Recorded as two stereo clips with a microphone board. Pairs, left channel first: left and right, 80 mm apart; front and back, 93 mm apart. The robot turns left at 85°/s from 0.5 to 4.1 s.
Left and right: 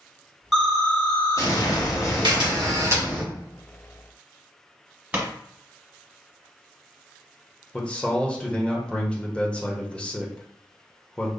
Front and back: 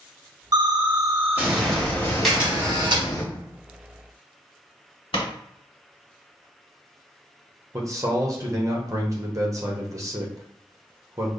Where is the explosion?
170° right, 1.0 m; by 3.2 s 40° right, 1.0 m.